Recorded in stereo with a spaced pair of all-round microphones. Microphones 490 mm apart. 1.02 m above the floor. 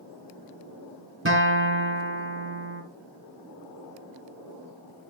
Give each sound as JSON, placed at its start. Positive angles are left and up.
{"t": 1.2, "sound": "a guitar", "side_deg": -25, "distance_m": 2.0}